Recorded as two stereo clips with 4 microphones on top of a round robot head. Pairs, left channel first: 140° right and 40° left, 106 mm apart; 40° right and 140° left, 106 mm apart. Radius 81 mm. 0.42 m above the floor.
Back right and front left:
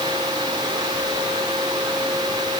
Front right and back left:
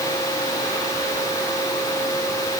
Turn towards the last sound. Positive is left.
No sound to turn to.